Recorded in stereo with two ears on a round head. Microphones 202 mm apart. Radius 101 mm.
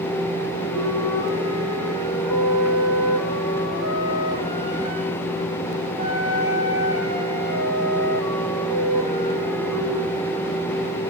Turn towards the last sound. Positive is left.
turn(degrees=75)  # may be behind; listen again after turning